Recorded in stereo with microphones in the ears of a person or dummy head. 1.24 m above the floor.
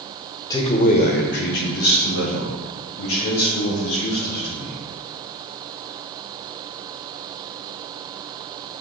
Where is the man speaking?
25° left (ahead or behind), 1.0 m; by 4.8 s 85° left, 6 m.